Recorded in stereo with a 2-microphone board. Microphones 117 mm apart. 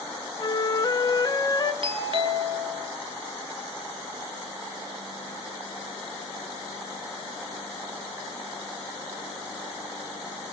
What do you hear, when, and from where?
0.4 s a flute: 35° left (ahead or behind), 1.2 m
1.8 s a doorbell: 50° right (ahead or behind), 2.5 m